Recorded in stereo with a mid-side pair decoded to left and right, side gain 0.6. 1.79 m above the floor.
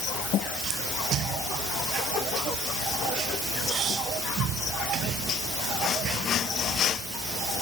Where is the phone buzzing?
No phone buzzing in this recording.